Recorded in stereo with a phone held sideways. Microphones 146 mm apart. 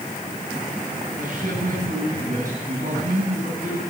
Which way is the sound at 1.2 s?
65° right (ahead or behind).